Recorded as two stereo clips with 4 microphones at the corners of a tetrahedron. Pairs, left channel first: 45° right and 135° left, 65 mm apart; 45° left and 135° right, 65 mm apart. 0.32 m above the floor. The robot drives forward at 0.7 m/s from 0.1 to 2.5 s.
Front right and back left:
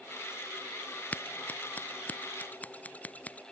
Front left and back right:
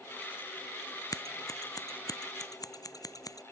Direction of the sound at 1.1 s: 20° left.